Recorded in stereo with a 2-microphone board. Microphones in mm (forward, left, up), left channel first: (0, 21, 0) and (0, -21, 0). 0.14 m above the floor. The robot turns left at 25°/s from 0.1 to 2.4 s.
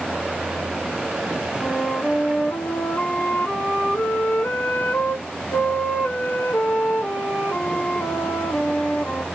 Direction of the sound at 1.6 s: 55° left (ahead or behind).